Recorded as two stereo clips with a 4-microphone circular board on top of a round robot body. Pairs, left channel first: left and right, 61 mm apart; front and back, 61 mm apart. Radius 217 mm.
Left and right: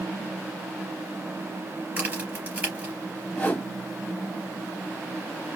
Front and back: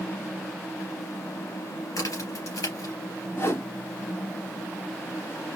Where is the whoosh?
25° left, 2 m.